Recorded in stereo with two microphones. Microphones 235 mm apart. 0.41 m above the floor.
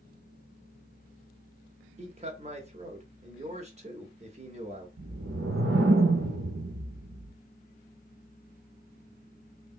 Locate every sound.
2.0 s a man speaking: 30° right (ahead or behind), 0.9 m
5.0 s a whoosh: 70° right (ahead or behind), 0.6 m